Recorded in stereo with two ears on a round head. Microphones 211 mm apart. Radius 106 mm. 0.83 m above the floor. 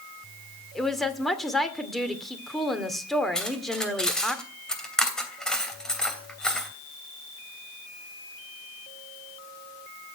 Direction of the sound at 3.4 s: 5° left (ahead or behind).